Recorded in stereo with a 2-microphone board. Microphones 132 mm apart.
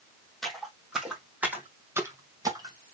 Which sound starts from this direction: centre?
Footsteps, at 0.4 s.